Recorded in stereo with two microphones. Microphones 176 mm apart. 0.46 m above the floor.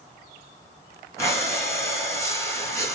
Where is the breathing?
15° left (ahead or behind), 4 m.